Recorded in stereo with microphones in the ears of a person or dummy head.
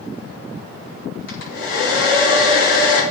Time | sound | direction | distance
1.3 | a hair dryer | 80° left | 4.5 m